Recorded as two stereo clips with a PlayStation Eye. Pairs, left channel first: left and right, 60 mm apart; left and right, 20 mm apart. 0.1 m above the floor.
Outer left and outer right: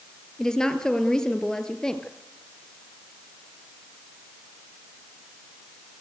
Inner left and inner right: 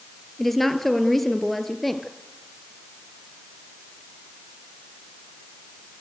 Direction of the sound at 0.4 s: 10° left (ahead or behind).